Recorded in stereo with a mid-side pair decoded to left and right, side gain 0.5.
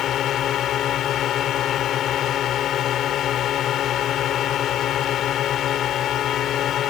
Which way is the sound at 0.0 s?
65° left.